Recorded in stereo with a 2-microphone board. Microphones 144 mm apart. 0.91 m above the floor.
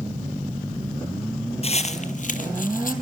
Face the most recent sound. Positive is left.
turn(degrees=65)  # may be behind; listen again after turning